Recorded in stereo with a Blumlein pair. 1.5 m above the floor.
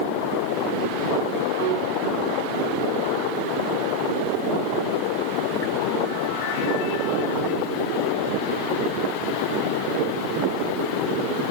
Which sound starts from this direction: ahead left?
A piano, at 1.6 s.